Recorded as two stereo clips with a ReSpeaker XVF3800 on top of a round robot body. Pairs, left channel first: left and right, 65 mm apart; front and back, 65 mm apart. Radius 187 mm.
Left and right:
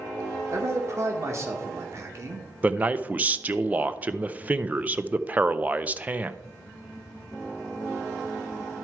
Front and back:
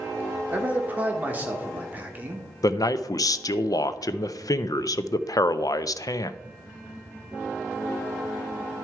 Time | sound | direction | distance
0.5 | a man speaking | 120° right | 1.6 m
2.6 | a man speaking | 25° right | 0.7 m